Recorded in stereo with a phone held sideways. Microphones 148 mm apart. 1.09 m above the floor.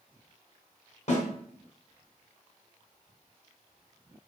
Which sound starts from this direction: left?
A snare drum, at 1.1 s.